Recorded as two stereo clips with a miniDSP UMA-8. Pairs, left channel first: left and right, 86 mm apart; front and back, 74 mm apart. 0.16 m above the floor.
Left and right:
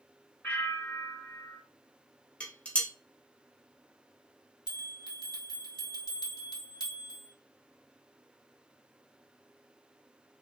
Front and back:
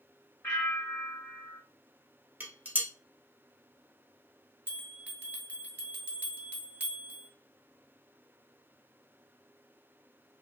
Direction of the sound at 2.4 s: 145° left.